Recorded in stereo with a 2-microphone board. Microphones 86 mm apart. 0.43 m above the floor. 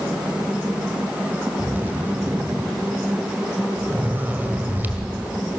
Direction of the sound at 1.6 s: 25° right (ahead or behind).